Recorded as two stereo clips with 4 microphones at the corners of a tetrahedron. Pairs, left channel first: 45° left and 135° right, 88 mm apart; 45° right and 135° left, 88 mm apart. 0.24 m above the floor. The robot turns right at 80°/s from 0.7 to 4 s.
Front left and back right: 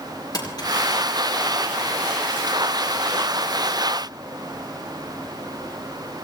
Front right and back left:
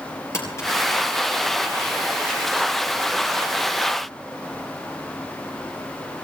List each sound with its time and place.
0.3 s crumpling: 10° left, 4.5 m